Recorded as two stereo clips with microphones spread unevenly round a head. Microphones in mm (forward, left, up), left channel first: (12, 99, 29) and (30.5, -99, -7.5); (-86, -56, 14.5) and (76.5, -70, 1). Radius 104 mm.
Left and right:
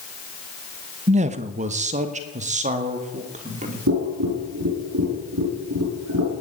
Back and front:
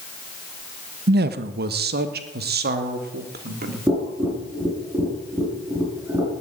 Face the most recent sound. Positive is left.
turn(degrees=-85)